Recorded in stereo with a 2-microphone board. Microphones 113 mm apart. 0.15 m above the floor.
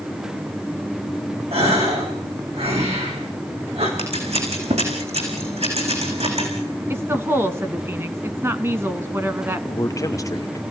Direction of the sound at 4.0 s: 80° right.